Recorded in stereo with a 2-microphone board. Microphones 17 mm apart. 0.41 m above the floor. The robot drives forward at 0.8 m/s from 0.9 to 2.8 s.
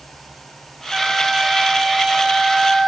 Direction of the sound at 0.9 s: 25° right (ahead or behind).